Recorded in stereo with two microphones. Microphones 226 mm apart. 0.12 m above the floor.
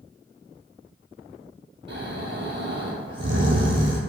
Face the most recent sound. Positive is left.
turn(degrees=-55)  # may be behind; listen again after turning